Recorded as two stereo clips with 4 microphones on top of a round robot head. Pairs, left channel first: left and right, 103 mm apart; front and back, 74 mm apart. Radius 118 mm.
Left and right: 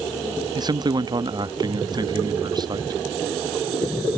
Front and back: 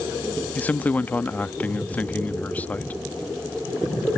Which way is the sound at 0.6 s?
65° right.